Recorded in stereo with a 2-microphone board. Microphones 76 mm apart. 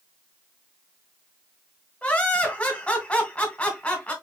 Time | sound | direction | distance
2.0 | laughter | 20° left (ahead or behind) | 1.6 m